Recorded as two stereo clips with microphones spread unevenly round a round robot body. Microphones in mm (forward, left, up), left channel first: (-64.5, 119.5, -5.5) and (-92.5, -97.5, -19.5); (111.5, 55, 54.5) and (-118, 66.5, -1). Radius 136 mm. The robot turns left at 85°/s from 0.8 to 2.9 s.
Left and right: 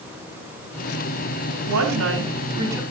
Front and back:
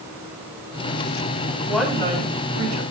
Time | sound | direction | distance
1.7 | a woman speaking | 85° right | 7 m